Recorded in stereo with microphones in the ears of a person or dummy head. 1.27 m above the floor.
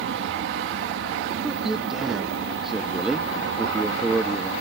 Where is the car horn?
No car horn in this recording.